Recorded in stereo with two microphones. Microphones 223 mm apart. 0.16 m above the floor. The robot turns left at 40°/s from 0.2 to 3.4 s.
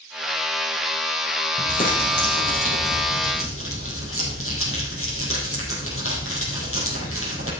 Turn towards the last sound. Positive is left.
turn(degrees=75)